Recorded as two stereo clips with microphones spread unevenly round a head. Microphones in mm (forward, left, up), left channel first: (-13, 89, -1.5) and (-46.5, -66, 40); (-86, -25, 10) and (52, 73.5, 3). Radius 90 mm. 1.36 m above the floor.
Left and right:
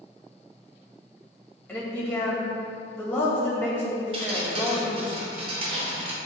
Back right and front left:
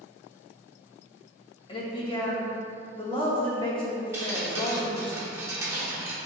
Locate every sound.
1.7 s a woman speaking: 155° left, 2 m
4.1 s dripping: 40° right, 0.9 m